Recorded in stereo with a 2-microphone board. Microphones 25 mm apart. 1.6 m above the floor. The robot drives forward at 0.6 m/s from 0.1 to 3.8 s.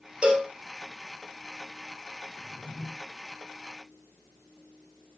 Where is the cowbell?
40° right (ahead or behind), 2.5 m.